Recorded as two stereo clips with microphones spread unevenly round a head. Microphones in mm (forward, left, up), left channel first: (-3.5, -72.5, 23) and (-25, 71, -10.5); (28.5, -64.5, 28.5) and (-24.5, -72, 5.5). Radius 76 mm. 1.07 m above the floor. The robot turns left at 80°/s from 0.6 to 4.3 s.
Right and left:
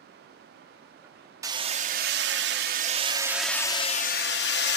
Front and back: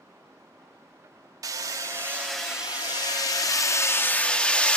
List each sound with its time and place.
1.4 s hammering: 170° left, 1.5 m; by 4.8 s 60° right, 1.5 m